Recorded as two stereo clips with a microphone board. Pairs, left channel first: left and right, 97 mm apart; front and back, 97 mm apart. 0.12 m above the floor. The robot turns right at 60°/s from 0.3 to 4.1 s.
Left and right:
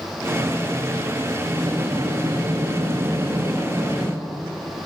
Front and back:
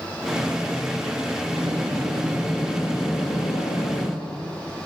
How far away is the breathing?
About 3 m.